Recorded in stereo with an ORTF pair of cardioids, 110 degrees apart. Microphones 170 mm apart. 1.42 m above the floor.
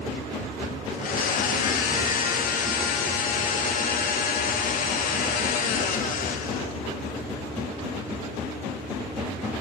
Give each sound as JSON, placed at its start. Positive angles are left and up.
{"t": 0.9, "sound": "a blender", "azimuth_deg": 55, "distance_m": 1.6}